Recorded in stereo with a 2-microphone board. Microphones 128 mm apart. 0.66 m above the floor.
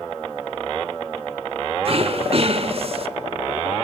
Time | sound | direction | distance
1.9 | throat clearing | 50° right (ahead or behind) | 0.9 m